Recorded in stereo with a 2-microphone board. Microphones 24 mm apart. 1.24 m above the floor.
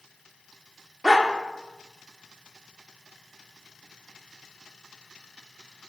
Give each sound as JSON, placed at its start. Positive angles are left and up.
{"t": 1.0, "sound": "a dog barking", "side_deg": -30, "distance_m": 1.1}